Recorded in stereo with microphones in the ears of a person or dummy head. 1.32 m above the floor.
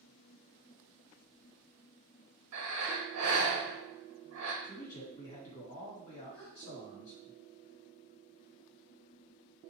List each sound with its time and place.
2.5 s breathing: 75° right (ahead or behind), 1.0 m
4.6 s a man speaking: 50° left (ahead or behind), 1.8 m
6.3 s a gasp: 25° left (ahead or behind), 0.8 m